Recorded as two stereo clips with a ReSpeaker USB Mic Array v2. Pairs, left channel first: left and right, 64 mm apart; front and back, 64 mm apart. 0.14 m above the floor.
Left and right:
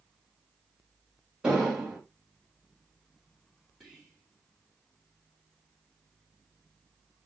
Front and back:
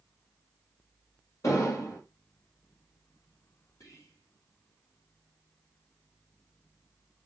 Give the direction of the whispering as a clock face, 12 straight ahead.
12 o'clock.